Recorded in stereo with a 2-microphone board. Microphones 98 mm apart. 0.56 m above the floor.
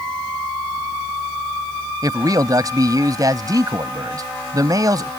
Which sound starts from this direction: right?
A man speaking, at 2.0 s.